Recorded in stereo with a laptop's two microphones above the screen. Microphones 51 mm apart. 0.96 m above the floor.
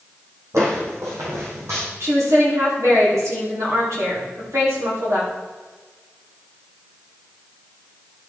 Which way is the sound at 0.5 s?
70° right (ahead or behind).